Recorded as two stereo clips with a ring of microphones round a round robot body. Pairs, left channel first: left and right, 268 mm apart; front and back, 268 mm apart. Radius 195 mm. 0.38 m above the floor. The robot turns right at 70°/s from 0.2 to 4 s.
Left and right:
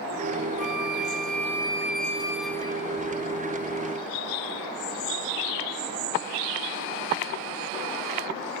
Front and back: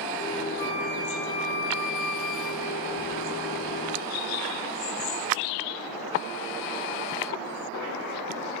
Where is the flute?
130° right; by 2.9 s 30° left.